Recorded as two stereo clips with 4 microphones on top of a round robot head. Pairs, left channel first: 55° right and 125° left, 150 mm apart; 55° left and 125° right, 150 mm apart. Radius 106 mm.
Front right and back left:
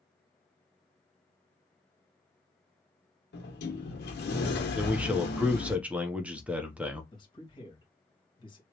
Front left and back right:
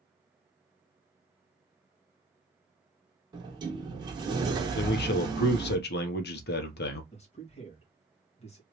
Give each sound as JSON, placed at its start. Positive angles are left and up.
{"t": 3.3, "sound": "a sliding door", "azimuth_deg": -60, "distance_m": 1.5}
{"t": 4.8, "sound": "a man speaking", "azimuth_deg": 45, "distance_m": 0.9}
{"t": 7.1, "sound": "a man speaking", "azimuth_deg": 5, "distance_m": 1.8}